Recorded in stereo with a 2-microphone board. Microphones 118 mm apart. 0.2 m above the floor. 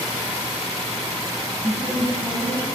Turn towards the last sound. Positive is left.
turn(degrees=-35)  # may be behind; listen again after turning